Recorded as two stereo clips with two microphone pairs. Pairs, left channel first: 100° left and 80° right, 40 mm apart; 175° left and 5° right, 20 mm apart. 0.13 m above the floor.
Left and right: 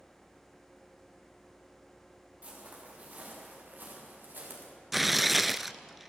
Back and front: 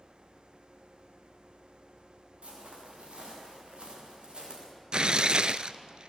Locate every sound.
2.4 s footsteps: 20° right, 8.5 m; by 4.7 s 45° right, 7 m
4.9 s tearing paper: 10° left, 0.5 m